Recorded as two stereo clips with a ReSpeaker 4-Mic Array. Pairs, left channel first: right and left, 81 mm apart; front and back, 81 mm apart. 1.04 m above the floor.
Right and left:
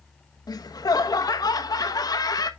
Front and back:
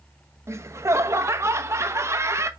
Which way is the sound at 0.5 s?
125° right.